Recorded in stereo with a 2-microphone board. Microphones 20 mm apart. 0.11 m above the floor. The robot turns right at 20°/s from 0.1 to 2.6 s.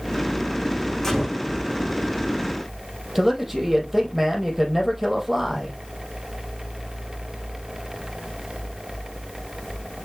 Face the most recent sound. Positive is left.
turn(degrees=-10)  # may be behind; listen again after turning